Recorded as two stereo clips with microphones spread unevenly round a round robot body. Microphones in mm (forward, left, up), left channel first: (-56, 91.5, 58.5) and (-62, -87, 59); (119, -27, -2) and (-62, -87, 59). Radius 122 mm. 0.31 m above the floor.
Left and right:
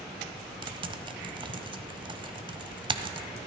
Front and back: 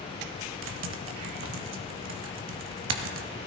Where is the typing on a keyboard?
155° right, 0.9 m.